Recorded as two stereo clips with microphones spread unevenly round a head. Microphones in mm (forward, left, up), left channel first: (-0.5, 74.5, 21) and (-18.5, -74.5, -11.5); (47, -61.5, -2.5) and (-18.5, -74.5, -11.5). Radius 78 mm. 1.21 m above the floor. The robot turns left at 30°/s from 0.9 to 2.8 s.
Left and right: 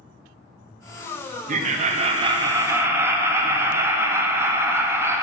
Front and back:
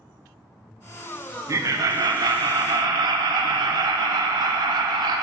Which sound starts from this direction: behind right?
Laughter, at 1.5 s.